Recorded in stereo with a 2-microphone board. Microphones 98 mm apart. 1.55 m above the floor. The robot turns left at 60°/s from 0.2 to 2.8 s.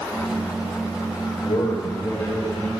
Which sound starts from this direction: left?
A man speaking, at 1.4 s.